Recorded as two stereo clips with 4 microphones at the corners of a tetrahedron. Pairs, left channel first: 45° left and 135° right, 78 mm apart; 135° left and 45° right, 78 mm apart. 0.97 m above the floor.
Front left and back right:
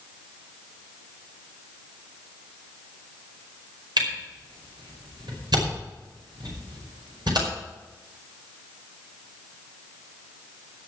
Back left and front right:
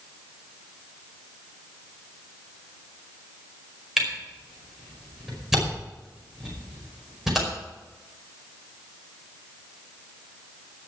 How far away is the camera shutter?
About 5 m.